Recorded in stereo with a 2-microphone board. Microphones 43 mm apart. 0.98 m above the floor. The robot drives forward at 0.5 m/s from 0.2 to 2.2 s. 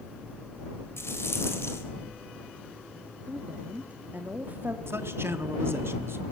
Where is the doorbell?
I don't hear a doorbell.